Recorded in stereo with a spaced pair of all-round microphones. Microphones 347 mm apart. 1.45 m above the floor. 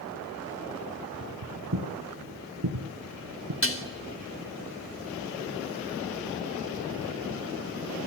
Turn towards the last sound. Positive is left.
turn(degrees=35)  # may be behind; listen again after turning